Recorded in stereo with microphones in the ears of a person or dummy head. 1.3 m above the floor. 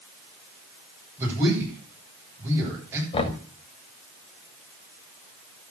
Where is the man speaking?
15° right (ahead or behind), 9 m.